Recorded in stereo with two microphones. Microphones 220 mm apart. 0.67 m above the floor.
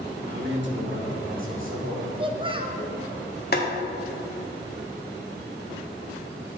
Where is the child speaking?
25° right (ahead or behind), 0.8 m.